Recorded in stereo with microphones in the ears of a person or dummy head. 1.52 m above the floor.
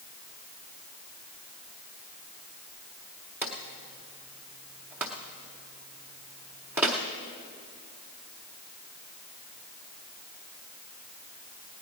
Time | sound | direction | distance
3.4 | a drawer | 5° right (ahead or behind) | 0.7 m